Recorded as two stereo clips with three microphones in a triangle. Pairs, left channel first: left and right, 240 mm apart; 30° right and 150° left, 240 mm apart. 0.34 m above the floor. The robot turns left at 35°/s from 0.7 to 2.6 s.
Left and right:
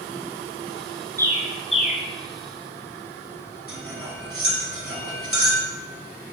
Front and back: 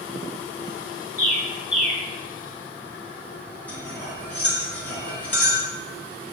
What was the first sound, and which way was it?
A bird, 170° left.